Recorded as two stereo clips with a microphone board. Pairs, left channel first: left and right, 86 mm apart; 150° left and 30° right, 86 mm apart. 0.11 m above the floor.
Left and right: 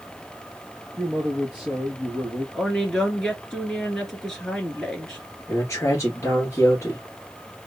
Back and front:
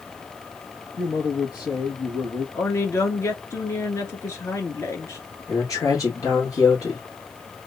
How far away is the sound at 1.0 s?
About 1.8 m.